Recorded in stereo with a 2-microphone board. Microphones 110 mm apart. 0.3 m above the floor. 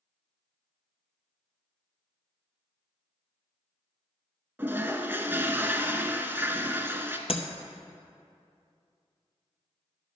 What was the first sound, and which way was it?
A toilet flushing, 20° right (ahead or behind).